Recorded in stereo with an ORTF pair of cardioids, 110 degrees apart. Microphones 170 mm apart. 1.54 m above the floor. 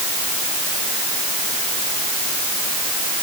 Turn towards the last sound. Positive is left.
No sound to turn to.